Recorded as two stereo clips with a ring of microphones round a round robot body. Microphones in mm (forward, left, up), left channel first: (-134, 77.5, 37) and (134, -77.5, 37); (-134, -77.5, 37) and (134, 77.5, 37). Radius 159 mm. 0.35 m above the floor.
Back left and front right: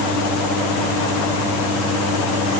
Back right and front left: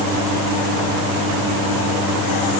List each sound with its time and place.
Only background noise.